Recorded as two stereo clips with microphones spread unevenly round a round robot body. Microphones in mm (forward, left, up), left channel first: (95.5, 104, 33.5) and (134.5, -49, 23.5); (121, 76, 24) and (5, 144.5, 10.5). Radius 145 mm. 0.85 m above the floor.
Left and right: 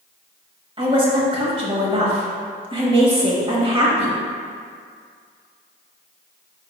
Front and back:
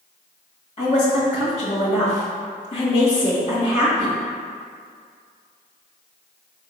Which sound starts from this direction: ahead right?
A woman speaking, at 0.8 s.